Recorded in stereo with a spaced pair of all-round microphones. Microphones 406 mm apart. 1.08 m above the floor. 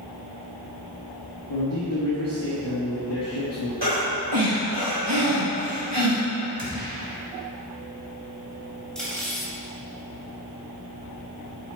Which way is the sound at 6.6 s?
55° right (ahead or behind).